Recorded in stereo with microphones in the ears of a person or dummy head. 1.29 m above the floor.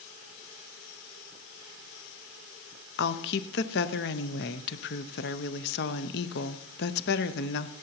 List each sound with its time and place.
3.0 s a woman speaking: 50° left (ahead or behind), 0.6 m